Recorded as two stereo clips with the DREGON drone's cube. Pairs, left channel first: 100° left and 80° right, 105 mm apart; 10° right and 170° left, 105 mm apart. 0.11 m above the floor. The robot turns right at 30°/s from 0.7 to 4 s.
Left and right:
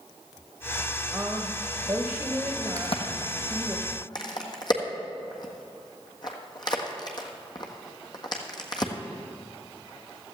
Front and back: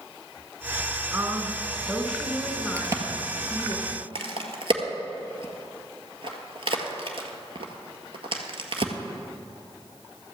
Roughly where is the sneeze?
No sneeze in this recording.